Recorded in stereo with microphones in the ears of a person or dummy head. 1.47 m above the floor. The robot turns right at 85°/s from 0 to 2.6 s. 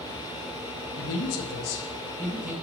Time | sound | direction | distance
1.0 | a man speaking | 65° left | 1.4 m